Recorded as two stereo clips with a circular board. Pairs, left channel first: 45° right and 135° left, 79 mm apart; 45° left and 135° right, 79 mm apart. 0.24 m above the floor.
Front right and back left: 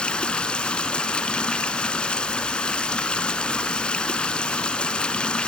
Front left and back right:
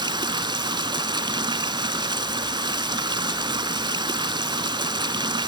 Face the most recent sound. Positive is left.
turn(degrees=-120)